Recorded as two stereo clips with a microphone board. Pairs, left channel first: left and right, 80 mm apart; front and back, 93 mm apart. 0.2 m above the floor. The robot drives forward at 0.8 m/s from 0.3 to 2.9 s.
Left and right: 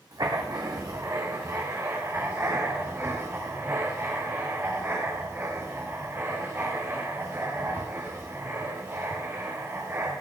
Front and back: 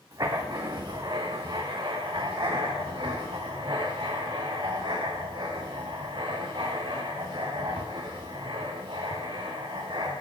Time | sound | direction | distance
0.1 | writing | 130° right | 3 m